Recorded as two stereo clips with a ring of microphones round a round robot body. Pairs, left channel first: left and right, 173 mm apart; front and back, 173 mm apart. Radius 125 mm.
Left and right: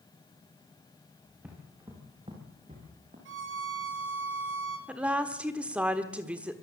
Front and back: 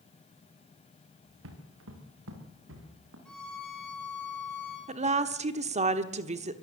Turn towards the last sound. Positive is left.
turn(degrees=-170)